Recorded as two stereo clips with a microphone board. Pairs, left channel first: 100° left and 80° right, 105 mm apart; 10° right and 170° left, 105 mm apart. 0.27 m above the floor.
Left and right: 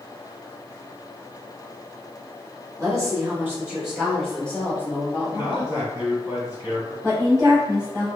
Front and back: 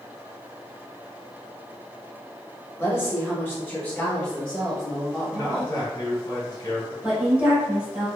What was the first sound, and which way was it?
A woman speaking, 60° right.